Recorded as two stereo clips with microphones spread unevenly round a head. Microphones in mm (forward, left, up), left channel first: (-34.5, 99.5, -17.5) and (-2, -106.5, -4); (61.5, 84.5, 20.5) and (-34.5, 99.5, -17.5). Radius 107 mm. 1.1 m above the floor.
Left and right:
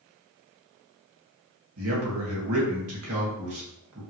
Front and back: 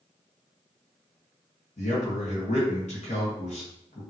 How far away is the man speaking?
About 1.6 m.